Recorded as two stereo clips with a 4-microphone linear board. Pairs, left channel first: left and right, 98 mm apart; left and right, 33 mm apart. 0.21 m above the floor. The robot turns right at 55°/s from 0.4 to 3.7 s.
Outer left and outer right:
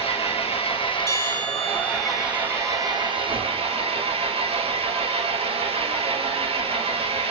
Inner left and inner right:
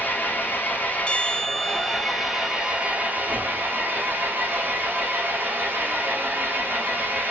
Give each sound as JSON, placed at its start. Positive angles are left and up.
{"t": 0.0, "sound": "an engine running", "azimuth_deg": 85, "distance_m": 3.5}
{"t": 1.1, "sound": "a bell", "azimuth_deg": 150, "distance_m": 1.9}